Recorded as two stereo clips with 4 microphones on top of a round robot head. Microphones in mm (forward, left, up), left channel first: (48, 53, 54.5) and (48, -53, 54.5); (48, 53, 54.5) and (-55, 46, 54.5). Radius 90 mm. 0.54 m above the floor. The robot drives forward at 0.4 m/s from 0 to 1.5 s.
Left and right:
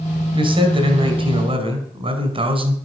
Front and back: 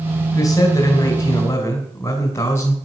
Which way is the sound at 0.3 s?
55° right.